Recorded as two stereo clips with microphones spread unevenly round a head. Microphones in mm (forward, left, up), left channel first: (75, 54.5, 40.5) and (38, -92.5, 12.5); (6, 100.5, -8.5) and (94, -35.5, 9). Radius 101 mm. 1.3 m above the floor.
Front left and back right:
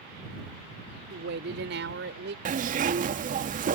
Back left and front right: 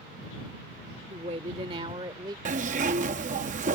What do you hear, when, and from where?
1.1 s a woman speaking: 115° right; by 2.4 s 130° right
2.5 s a zipper: 75° right